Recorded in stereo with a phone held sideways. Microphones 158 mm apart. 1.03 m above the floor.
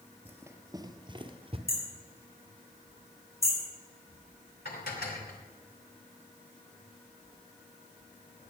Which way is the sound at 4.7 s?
85° left.